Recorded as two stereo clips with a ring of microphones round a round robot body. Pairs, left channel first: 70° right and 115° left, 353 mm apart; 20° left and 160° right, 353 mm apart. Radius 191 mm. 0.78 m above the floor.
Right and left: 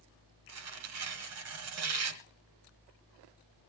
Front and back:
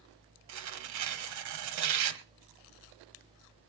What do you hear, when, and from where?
0.5 s tearing paper: 160° left, 1.2 m